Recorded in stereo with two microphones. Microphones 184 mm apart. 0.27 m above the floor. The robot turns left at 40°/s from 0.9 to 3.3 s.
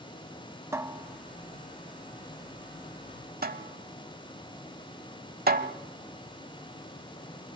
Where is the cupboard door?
15° right (ahead or behind), 0.8 m; by 5.7 s 55° right (ahead or behind), 0.8 m.